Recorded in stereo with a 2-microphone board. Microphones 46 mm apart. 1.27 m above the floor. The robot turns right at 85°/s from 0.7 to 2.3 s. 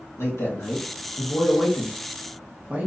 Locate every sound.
0.2 s a man speaking: 85° left, 1.3 m; by 2.9 s 140° right, 1.3 m